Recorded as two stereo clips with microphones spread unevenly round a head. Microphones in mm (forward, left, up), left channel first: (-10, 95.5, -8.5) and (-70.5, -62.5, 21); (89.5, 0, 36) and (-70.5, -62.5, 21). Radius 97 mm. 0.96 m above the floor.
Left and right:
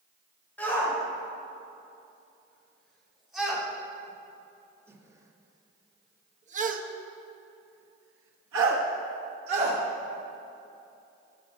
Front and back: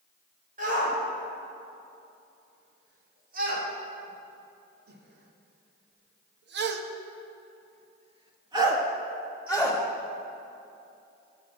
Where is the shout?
150° left, 4 m; by 9.8 s 75° right, 1.7 m.